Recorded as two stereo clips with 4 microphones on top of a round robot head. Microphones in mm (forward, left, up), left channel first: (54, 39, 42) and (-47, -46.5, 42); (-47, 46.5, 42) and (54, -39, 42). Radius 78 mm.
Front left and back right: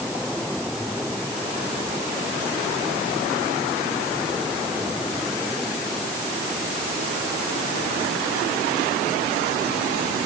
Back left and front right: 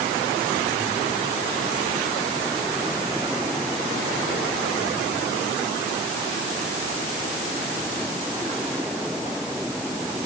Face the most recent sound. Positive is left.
No sound to turn to.